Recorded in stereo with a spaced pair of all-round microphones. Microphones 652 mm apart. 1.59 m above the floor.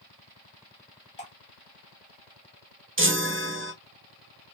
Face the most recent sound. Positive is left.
turn(degrees=-20)  # may be behind; listen again after turning